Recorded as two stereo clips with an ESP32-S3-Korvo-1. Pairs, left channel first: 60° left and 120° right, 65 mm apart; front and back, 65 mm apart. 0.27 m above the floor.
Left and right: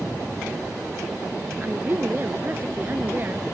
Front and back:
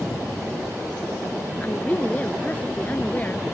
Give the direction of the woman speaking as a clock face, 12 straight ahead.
2 o'clock.